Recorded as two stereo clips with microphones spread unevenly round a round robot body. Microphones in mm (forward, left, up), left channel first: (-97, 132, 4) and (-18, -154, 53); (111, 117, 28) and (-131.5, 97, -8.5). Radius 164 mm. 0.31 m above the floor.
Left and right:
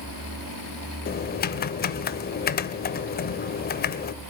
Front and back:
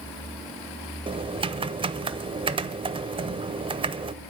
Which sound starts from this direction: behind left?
Typing on a keyboard, at 1.1 s.